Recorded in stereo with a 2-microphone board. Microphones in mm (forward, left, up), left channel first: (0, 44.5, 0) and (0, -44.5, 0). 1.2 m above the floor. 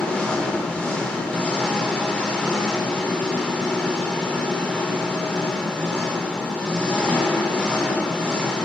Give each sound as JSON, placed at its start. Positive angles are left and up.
{"t": 0.0, "sound": "an engine running", "side_deg": 10, "distance_m": 3.5}